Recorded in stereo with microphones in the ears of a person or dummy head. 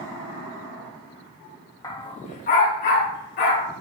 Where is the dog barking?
20° left (ahead or behind), 1.0 m; by 3.7 s 55° left (ahead or behind), 2.5 m.